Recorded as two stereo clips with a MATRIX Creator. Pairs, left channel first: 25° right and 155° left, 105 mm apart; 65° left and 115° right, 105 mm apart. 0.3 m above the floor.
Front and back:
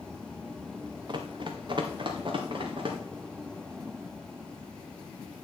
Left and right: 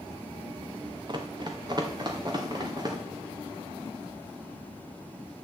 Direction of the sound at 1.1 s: 160° right.